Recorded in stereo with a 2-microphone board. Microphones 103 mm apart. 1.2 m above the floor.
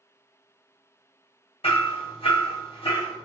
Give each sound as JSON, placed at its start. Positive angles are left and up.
{"t": 1.6, "sound": "hammering", "side_deg": 75, "distance_m": 1.1}